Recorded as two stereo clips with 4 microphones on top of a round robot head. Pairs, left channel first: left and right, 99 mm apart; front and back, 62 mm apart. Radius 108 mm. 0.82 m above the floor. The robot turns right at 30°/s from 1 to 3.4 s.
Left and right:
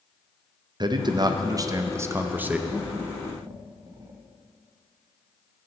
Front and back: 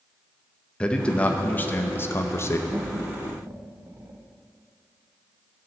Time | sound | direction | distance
0.8 | a man speaking | 65° right | 0.8 m
2.7 | laughter | 165° right | 1.1 m